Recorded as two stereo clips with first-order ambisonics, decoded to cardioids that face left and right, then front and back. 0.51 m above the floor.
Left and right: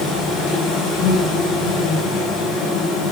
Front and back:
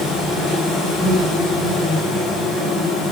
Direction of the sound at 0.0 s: 60° left.